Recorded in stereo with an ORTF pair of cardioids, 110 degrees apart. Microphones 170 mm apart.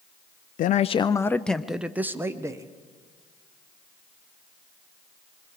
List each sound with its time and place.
0.6 s a man speaking: 55° left, 0.5 m; by 2.7 s 20° right, 1.3 m